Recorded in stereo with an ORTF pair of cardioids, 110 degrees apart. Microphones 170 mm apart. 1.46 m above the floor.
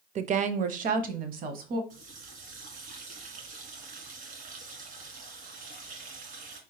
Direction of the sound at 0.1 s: 45° right.